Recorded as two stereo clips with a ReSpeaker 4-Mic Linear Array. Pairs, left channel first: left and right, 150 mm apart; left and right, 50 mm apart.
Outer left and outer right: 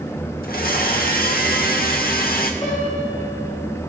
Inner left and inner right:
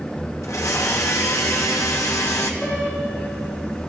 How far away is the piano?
About 5.5 m.